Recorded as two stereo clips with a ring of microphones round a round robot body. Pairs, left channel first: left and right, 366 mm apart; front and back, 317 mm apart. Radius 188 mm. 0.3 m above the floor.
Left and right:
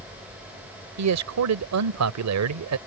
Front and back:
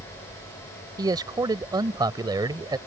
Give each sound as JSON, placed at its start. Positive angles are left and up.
{"t": 1.0, "sound": "a man speaking", "azimuth_deg": -105}